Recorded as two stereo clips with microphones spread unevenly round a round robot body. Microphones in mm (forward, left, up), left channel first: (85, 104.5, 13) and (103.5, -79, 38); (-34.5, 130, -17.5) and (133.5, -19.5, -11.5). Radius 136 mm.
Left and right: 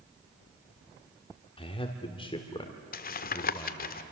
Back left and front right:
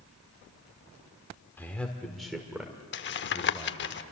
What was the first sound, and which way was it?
A man speaking, 65° left.